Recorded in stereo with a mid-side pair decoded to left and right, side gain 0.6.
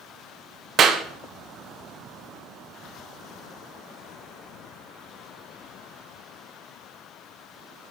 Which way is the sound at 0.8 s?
50° right.